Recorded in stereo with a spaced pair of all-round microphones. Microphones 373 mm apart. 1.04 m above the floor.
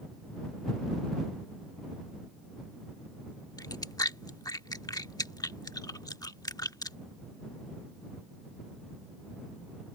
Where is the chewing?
10° left (ahead or behind).